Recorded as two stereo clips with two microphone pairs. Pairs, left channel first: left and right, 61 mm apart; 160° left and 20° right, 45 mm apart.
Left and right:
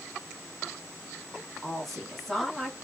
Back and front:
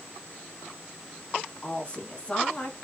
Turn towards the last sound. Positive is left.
turn(degrees=175)